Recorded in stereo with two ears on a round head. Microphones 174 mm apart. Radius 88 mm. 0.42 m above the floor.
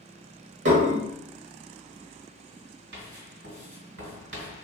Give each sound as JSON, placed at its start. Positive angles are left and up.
{"t": 0.7, "sound": "dishes clattering", "side_deg": -65, "distance_m": 1.1}
{"t": 2.9, "sound": "writing", "side_deg": -70, "distance_m": 1.8}